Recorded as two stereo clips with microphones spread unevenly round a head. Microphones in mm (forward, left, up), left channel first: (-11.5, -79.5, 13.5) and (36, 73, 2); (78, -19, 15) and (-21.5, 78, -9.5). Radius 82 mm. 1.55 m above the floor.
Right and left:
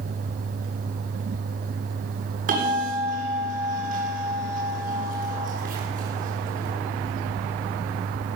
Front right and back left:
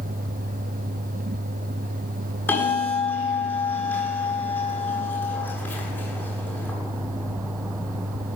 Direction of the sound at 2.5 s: 30° left.